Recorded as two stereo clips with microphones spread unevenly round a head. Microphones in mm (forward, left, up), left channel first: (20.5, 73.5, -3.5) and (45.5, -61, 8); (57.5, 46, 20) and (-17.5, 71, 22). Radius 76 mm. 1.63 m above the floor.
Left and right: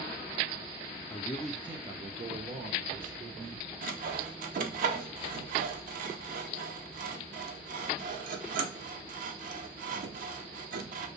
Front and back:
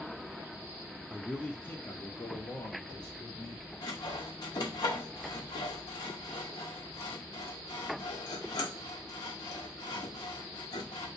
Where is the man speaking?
65° left, 0.6 m; by 3.7 s 80° right, 1.6 m.